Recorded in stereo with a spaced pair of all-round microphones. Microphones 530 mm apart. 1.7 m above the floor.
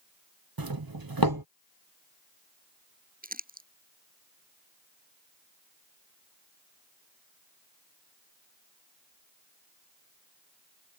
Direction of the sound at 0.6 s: 40° right (ahead or behind).